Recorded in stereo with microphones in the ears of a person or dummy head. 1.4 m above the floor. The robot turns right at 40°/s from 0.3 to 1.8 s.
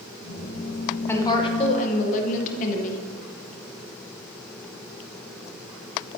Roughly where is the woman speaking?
Centre.